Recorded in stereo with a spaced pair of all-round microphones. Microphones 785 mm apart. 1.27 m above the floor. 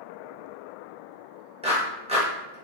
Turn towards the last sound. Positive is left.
turn(degrees=-10)  # may be behind; listen again after turning